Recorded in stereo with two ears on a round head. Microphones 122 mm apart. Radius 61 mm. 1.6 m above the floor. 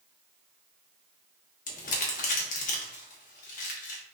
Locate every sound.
1.7 s crumpling: 65° left (ahead or behind), 1.1 m